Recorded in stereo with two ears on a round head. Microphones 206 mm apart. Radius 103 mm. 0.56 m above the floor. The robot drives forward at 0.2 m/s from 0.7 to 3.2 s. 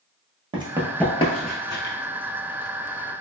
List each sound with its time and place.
0.5 s running footsteps: 25° right (ahead or behind), 0.7 m; by 1.9 s 50° left (ahead or behind), 0.9 m